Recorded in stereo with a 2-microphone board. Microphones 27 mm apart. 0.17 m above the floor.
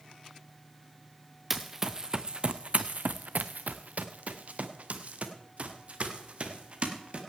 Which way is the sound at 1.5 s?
5° right (ahead or behind).